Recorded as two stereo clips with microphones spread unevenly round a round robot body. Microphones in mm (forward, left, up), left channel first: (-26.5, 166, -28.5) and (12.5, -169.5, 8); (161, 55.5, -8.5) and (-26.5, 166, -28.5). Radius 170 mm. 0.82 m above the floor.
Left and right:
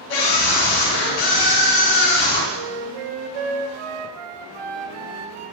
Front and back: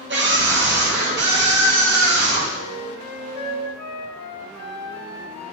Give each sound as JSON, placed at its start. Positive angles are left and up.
{"t": 0.1, "sound": "a scream", "azimuth_deg": 115, "distance_m": 5.0}
{"t": 2.5, "sound": "a flute", "azimuth_deg": -65, "distance_m": 1.0}